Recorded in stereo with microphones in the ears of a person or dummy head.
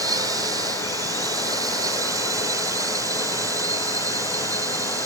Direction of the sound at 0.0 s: 20° right (ahead or behind).